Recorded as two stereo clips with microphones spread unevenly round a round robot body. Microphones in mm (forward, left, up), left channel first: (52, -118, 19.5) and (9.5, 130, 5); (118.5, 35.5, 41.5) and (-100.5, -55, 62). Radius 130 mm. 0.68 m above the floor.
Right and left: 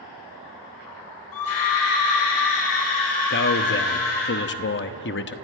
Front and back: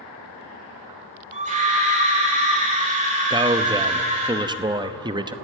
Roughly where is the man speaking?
Right.